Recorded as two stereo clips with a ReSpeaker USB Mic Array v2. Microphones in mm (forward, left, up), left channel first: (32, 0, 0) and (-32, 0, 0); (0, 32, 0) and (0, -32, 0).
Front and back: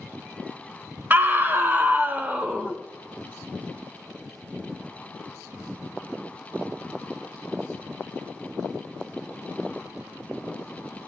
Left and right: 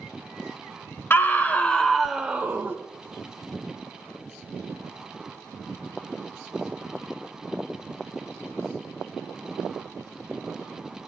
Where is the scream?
130° left, 1.8 m; by 2.8 s 115° right, 1.4 m.